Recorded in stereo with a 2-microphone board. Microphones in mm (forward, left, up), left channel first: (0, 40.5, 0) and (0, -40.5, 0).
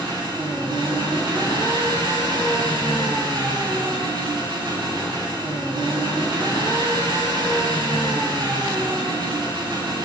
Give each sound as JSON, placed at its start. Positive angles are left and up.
{"t": 0.0, "sound": "an engine running", "side_deg": -65, "distance_m": 6.0}